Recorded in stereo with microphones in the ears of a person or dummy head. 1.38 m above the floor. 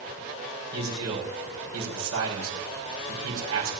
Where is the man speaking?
85° right, 5 m.